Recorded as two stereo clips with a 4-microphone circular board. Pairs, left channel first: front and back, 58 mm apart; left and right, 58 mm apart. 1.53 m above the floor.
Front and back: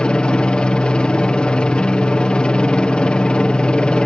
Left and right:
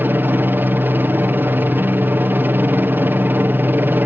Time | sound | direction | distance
0.0 | a helicopter | 65° right | ?